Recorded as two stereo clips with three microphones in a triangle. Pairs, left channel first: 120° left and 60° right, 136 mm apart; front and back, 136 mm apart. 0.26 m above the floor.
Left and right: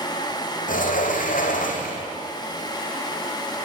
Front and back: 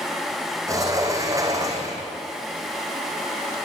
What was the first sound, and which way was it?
A sliding door, 115° left.